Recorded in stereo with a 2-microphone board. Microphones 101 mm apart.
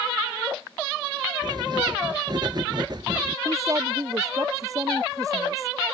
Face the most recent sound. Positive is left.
turn(degrees=-35)  # may be behind; listen again after turning